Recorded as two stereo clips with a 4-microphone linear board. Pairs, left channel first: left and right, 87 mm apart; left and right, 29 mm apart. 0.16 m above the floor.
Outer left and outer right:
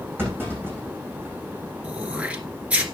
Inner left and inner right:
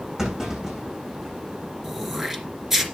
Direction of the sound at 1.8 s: 15° right (ahead or behind).